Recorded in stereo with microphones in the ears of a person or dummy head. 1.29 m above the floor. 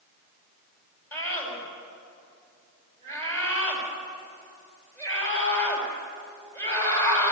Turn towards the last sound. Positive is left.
turn(degrees=15)  # may be behind; listen again after turning